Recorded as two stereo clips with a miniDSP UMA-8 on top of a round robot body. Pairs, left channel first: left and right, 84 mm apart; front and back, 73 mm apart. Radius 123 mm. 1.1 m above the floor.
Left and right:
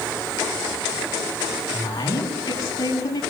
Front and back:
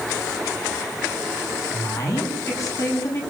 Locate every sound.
1.7 s a woman speaking: 40° left, 10 m